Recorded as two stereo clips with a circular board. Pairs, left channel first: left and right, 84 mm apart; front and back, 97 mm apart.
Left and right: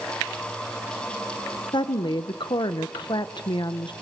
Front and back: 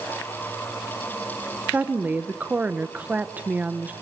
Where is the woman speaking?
110° left, 1.2 m.